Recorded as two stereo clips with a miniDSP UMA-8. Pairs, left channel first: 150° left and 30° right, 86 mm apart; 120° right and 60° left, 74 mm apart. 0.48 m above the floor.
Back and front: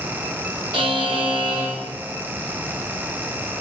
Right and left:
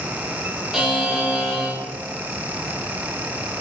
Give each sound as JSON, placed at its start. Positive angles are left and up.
{"t": 0.7, "sound": "a buzzer", "azimuth_deg": -20, "distance_m": 0.9}